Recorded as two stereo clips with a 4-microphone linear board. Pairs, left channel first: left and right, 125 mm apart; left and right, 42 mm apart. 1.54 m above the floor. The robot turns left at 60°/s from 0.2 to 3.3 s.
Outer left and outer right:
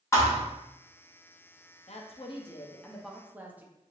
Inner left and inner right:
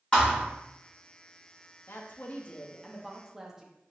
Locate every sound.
0.1 s a thud: 25° left (ahead or behind), 1.0 m; by 0.4 s 15° left (ahead or behind), 1.0 m
1.9 s a woman speaking: 70° left, 0.6 m; by 3.7 s 15° right, 0.6 m